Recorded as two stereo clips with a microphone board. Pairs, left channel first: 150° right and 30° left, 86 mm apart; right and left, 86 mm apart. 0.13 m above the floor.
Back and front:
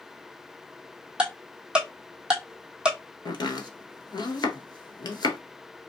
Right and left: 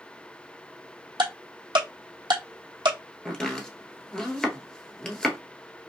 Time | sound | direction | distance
1.2 | ticking | 110° left | 1.2 m
3.2 | chopping | 170° right | 1.1 m